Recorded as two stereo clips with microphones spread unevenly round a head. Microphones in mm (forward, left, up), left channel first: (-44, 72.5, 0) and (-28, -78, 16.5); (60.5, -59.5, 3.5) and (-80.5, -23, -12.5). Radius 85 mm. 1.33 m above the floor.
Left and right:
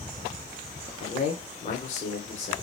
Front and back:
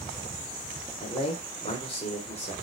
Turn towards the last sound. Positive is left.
turn(degrees=45)